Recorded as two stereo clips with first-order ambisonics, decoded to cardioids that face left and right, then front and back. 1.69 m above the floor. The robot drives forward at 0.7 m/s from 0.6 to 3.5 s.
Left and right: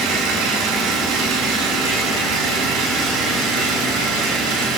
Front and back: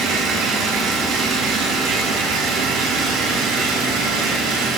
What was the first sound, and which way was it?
An engine running, 125° right.